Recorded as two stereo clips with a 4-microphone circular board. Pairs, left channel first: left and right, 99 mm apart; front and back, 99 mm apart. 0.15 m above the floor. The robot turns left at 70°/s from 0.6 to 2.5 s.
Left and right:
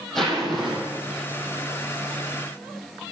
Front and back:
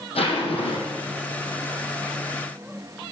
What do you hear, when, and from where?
0.1 s a zipper: 5° left, 4 m; by 1.2 s 40° right, 4 m